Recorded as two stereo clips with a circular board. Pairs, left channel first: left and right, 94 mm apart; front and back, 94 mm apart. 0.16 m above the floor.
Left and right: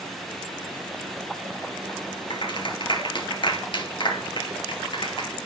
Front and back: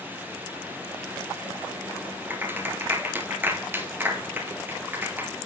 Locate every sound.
2.3 s a clap: 115° left, 2.5 m